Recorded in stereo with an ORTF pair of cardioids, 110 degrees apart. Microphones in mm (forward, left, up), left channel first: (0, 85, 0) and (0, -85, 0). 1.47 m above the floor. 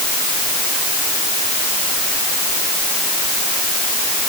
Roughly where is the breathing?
I don't hear breathing.